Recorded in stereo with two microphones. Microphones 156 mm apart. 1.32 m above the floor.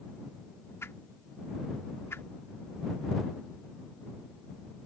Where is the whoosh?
15° left (ahead or behind).